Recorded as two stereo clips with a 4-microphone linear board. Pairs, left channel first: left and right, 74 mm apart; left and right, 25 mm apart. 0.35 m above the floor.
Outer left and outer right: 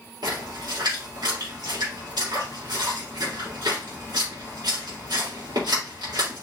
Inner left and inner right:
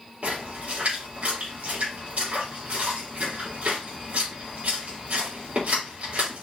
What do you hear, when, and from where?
0.2 s a splash: 70° right (ahead or behind), 3.5 m